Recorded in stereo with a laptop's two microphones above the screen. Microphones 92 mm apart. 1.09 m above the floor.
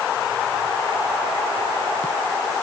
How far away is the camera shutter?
No camera shutter in this recording.